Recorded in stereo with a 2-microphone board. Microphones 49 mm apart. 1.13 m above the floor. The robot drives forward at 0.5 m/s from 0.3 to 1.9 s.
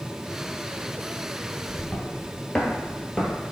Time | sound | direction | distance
1.7 | footsteps | 25° left (ahead or behind) | 1.3 m